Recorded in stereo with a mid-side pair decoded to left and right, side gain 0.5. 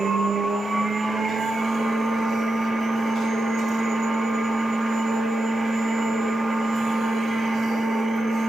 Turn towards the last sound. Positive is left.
turn(degrees=-20)